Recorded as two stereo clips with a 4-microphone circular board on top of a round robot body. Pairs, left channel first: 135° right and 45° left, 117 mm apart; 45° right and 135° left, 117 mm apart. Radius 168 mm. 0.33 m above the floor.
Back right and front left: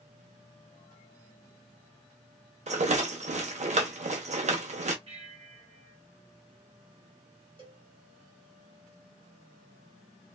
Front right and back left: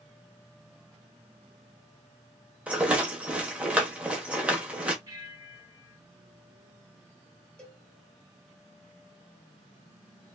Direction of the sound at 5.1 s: 75° left.